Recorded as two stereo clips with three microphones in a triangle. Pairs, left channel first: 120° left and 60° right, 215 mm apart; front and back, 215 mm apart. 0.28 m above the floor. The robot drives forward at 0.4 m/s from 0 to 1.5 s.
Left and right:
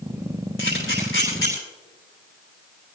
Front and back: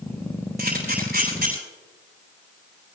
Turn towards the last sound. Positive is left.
turn(degrees=140)